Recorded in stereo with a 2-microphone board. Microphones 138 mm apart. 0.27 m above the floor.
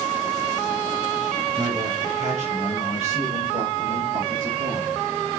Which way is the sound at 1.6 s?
65° right (ahead or behind).